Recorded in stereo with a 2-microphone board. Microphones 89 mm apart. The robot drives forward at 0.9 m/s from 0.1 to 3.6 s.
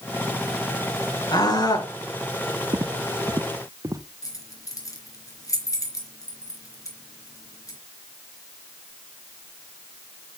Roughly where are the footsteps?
Right.